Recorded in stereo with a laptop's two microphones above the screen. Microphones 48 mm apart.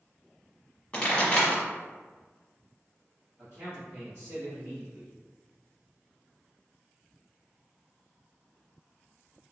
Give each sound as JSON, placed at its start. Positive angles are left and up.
{"t": 0.9, "sound": "a pop", "side_deg": 20, "distance_m": 1.3}
{"t": 3.4, "sound": "a man speaking", "side_deg": -40, "distance_m": 2.0}